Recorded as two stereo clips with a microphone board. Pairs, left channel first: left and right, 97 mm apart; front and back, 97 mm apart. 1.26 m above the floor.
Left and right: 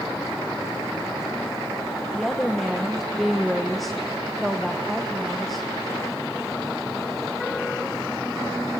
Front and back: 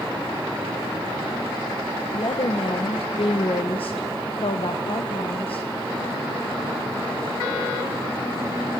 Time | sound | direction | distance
2.1 | a woman speaking | straight ahead | 1.1 m